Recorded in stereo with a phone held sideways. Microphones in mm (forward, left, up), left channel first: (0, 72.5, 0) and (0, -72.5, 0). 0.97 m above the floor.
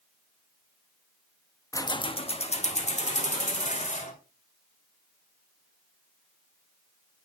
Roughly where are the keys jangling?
Left.